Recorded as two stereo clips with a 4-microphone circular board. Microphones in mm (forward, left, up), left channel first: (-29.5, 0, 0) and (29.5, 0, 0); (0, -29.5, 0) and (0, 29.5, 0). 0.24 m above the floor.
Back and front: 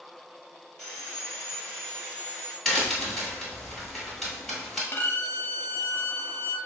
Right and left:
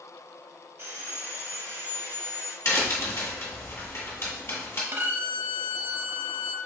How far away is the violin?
About 0.5 m.